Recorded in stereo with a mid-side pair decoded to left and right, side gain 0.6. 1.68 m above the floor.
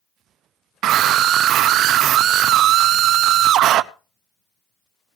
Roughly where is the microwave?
I don't hear a microwave.